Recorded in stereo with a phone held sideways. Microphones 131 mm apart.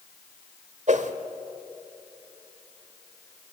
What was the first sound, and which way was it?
A whoosh, 65° right (ahead or behind).